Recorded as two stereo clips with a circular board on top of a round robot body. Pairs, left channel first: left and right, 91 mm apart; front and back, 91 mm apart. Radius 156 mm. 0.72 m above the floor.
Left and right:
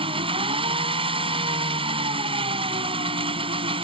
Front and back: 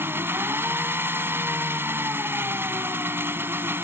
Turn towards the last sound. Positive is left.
turn(degrees=-115)